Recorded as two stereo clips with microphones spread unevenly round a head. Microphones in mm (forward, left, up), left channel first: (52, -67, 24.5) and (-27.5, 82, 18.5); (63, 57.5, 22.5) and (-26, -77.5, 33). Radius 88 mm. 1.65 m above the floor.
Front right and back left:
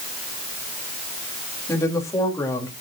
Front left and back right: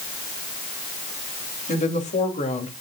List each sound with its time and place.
1.7 s a woman speaking: 10° left, 2.5 m